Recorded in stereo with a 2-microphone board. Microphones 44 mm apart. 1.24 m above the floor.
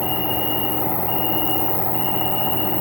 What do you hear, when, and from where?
0.0 s an insect: 25° left (ahead or behind), 1.0 m